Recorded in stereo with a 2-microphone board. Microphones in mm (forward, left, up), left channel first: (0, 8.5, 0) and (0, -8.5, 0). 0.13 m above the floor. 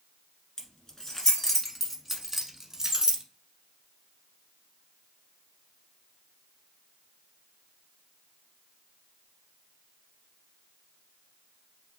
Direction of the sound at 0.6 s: 40° left (ahead or behind).